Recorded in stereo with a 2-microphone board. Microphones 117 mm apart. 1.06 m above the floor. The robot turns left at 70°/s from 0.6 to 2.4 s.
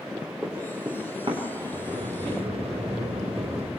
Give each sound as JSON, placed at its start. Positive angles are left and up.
{"t": 0.4, "sound": "running footsteps", "side_deg": -5, "distance_m": 6.0}
{"t": 1.7, "sound": "a sliding door", "azimuth_deg": -70, "distance_m": 2.5}